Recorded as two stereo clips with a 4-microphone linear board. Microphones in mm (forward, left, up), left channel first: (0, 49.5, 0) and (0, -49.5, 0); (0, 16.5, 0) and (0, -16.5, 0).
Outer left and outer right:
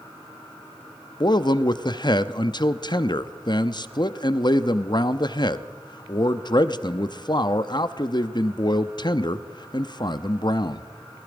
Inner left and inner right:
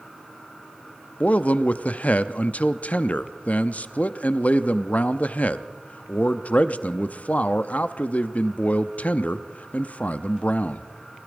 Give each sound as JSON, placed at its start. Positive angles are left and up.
{"t": 1.2, "sound": "a man speaking", "side_deg": 50, "distance_m": 0.6}